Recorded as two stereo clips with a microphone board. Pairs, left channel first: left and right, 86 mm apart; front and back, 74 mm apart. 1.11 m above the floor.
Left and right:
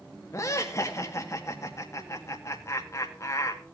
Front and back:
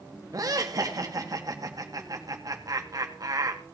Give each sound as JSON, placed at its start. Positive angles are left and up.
{"t": 0.3, "sound": "laughter", "azimuth_deg": 145, "distance_m": 1.9}